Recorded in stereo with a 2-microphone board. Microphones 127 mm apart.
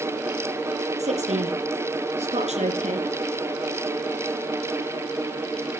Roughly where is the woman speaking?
Right.